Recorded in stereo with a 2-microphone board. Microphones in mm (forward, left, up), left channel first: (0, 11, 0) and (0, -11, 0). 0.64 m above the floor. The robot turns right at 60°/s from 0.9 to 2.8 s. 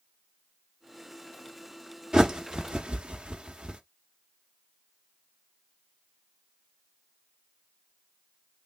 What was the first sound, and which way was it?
A bird, 35° right (ahead or behind).